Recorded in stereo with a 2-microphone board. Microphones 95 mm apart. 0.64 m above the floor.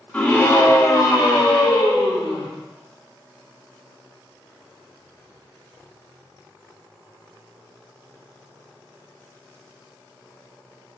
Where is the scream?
15° left (ahead or behind), 1.0 m; by 2.5 s 60° left (ahead or behind), 1.8 m.